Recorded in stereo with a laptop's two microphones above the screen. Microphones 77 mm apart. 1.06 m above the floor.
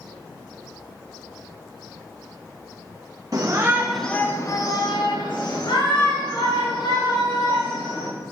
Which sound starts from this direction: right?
A shout, at 3.3 s.